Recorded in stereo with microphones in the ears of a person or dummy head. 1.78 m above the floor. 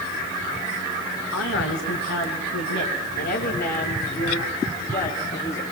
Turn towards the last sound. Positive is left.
turn(degrees=40)  # may be behind; listen again after turning